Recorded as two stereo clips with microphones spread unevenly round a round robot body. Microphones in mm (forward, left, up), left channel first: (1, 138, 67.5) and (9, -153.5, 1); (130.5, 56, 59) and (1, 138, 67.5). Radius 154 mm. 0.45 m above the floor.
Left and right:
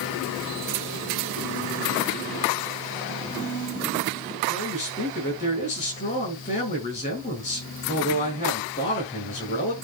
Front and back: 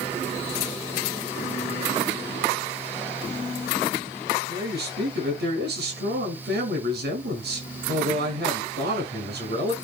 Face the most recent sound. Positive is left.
turn(degrees=160)